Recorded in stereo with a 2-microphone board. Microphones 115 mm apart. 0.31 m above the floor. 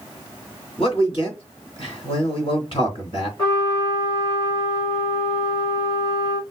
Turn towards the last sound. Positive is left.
turn(degrees=40)  # may be behind; listen again after turning